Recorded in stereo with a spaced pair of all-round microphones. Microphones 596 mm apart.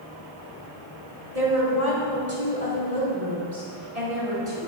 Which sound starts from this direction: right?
A woman speaking, at 1.4 s.